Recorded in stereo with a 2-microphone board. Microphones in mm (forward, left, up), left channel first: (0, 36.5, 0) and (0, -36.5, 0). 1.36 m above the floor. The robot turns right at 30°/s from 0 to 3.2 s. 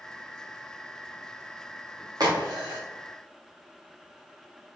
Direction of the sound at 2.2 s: 60° right (ahead or behind).